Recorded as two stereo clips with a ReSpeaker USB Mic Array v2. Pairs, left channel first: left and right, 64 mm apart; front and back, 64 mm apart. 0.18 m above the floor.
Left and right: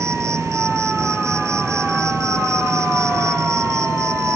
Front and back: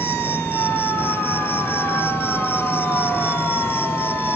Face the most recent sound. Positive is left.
turn(degrees=-50)